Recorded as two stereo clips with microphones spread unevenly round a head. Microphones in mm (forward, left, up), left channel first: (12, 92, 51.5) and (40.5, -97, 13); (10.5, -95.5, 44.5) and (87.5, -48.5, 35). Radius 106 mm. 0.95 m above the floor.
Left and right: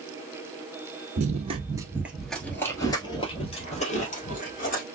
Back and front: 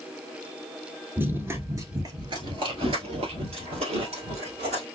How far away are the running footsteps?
About 1.1 m.